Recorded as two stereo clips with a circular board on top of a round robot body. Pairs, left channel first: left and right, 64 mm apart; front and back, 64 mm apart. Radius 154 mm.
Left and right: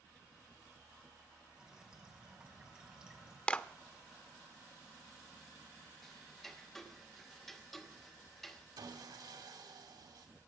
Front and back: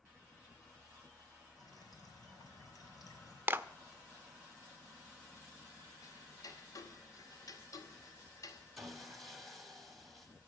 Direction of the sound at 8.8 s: 90° right.